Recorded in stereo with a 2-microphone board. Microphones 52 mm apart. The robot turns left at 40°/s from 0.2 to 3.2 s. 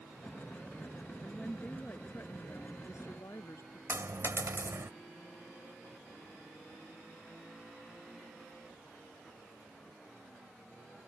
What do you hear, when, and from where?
1.2 s a woman speaking: 170° left; by 3.8 s 90° left
3.9 s a dropped coin: 60° right (ahead or behind)